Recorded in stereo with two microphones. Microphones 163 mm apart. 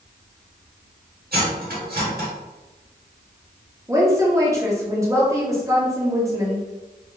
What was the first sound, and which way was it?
Cutlery clinking, 70° right (ahead or behind).